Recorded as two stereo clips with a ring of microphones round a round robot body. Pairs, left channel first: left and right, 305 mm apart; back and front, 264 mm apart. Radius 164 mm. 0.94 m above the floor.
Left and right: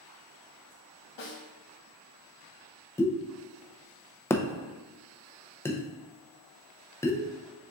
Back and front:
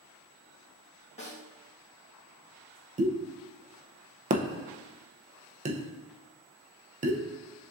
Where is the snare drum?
115° left, 1.8 m.